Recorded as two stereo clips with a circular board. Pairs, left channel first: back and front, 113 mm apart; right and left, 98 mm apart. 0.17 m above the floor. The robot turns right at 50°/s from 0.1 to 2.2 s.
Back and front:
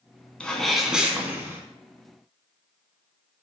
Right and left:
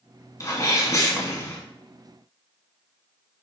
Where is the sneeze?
105° right, 1.5 m; by 1.6 s 45° right, 1.5 m.